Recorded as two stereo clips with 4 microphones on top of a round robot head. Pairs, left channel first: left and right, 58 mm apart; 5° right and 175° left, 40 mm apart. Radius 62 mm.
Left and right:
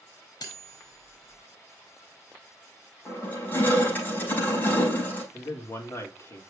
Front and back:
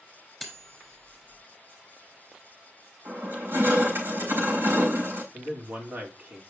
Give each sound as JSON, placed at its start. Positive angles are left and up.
{"t": 0.4, "sound": "cutlery clinking", "azimuth_deg": 85, "distance_m": 4.0}
{"t": 3.0, "sound": "crushing", "azimuth_deg": 150, "distance_m": 6.0}
{"t": 5.3, "sound": "a man speaking", "azimuth_deg": 130, "distance_m": 2.5}